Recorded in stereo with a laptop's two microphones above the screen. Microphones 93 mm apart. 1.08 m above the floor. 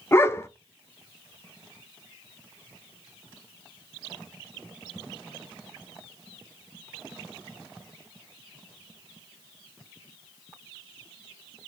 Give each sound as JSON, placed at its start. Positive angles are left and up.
{"t": 0.1, "sound": "a dog barking", "side_deg": 25, "distance_m": 0.6}